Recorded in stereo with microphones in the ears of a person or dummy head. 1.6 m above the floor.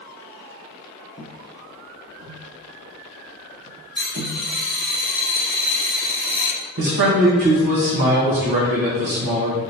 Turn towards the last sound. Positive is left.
turn(degrees=-55)  # may be behind; listen again after turning